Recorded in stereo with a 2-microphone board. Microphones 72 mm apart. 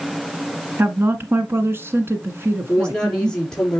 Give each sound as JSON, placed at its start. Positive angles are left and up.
{"t": 0.8, "sound": "a woman speaking", "side_deg": -35, "distance_m": 1.6}
{"t": 2.7, "sound": "a woman speaking", "side_deg": 10, "distance_m": 4.5}